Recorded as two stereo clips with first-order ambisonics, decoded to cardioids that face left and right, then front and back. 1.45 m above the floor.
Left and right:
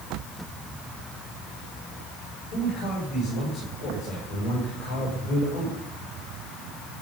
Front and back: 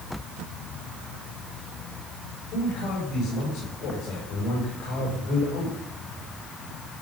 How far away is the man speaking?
About 6.5 m.